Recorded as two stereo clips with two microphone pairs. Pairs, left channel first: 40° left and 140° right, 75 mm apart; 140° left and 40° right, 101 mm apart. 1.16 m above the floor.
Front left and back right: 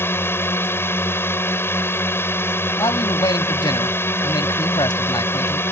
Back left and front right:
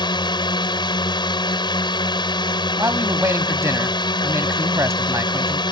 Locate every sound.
0.0 s a drone: 100° left
2.8 s a man speaking: 25° left